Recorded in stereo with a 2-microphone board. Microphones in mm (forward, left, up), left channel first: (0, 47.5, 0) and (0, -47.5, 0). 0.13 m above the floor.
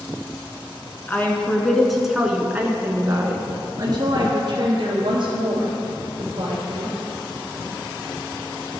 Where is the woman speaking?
20° left (ahead or behind), 1.2 m; by 6.9 s 65° right (ahead or behind), 3 m.